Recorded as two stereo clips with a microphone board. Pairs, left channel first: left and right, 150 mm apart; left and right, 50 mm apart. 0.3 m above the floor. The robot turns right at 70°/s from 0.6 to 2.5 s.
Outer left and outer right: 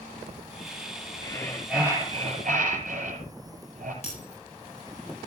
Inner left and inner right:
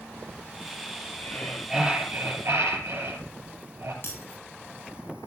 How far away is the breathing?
About 6 m.